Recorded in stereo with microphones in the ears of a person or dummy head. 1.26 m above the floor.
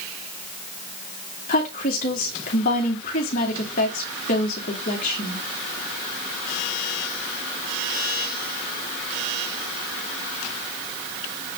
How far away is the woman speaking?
About 2.5 m.